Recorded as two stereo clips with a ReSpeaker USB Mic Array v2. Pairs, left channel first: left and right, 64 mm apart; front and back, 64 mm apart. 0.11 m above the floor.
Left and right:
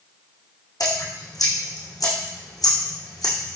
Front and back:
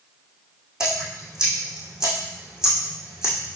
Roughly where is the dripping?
Left.